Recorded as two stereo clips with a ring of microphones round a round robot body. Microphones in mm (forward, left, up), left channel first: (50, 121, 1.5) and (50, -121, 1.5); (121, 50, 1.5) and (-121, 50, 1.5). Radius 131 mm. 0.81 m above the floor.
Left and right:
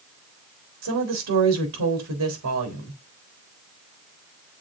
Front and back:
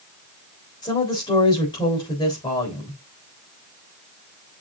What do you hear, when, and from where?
0.8 s a woman speaking: 75° right, 3.5 m